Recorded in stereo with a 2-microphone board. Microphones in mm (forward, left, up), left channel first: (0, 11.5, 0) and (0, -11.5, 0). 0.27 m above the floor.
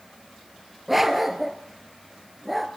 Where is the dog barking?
10° right (ahead or behind), 1.7 m.